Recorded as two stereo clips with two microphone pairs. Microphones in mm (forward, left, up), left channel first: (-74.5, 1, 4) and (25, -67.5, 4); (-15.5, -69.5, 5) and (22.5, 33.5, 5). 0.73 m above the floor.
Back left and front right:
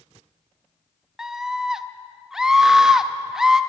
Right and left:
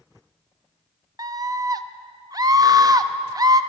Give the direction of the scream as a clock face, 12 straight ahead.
10 o'clock.